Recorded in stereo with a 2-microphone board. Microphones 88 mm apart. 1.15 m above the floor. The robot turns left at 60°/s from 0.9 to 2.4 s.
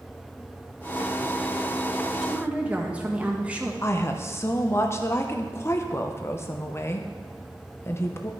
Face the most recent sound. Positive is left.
turn(degrees=30)  # may be behind; listen again after turning